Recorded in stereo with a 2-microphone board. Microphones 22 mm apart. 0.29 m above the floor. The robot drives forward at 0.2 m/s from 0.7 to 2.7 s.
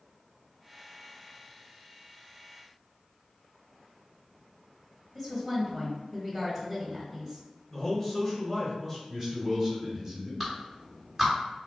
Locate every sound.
5.2 s a woman speaking: 5° right (ahead or behind), 1.1 m
7.7 s a man speaking: 10° left (ahead or behind), 1.0 m
9.1 s a man speaking: 20° right (ahead or behind), 1.7 m
10.4 s a clap: 15° right (ahead or behind), 1.5 m